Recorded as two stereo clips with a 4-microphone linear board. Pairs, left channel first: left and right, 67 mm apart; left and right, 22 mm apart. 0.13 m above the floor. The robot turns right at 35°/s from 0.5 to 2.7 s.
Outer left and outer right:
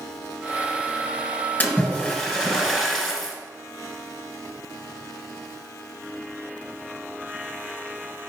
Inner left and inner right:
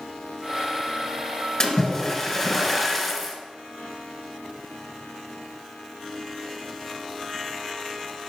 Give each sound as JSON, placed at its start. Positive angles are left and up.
{"t": 1.6, "sound": "a splash", "azimuth_deg": 130, "distance_m": 1.5}